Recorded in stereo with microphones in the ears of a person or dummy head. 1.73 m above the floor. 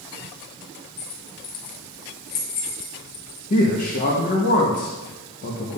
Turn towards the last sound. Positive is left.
turn(degrees=45)  # may be behind; listen again after turning